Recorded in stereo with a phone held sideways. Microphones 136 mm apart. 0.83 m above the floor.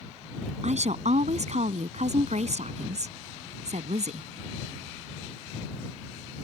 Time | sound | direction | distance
0.6 | a woman speaking | 65° right (ahead or behind) | ?